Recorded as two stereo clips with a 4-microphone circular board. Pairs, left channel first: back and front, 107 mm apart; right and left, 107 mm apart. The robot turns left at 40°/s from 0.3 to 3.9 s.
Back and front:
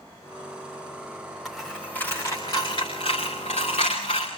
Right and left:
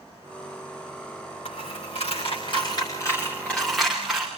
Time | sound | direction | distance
1.4 | a dropped coin | 85° right | 7 m